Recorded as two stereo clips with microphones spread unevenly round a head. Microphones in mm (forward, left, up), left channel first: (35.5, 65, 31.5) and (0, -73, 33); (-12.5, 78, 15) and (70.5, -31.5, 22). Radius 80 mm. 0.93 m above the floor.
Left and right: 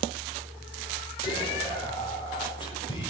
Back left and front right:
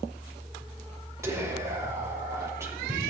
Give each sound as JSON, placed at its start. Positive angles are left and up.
{"t": 1.2, "sound": "whispering", "azimuth_deg": 20, "distance_m": 4.5}